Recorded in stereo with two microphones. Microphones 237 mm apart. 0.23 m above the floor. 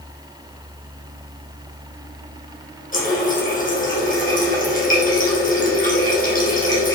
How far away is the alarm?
I don't hear an alarm.